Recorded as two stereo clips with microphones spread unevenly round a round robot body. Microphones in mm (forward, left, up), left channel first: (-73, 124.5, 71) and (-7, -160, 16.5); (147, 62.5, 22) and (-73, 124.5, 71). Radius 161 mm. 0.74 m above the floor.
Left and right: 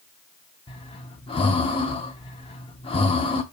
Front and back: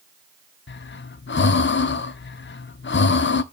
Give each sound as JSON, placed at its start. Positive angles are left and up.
{"t": 0.7, "sound": "breathing", "azimuth_deg": 30, "distance_m": 0.6}